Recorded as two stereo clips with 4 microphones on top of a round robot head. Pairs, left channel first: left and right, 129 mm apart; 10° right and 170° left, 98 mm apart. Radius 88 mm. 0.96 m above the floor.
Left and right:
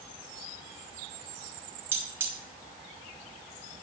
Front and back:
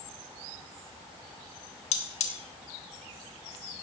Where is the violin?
I don't hear a violin.